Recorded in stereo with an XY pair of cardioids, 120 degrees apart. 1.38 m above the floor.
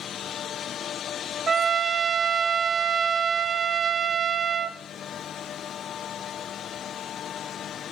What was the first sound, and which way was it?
A trumpet, 35° right.